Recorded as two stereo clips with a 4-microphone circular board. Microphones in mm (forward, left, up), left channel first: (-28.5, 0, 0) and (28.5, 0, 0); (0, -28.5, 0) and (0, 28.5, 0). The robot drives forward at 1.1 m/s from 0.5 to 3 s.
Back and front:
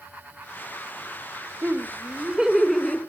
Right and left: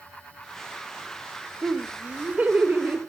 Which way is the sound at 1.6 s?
30° left.